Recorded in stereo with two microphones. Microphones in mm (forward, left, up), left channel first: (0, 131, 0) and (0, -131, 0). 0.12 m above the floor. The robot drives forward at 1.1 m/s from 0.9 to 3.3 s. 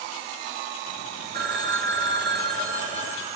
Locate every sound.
1.3 s a phone ringing: 40° right (ahead or behind), 1.1 m; by 3.4 s 25° right (ahead or behind), 1.9 m